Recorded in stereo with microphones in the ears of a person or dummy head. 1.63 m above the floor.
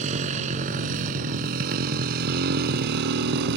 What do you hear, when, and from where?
0.0 s a motorcycle: 40° right (ahead or behind); by 3.6 s 65° right (ahead or behind)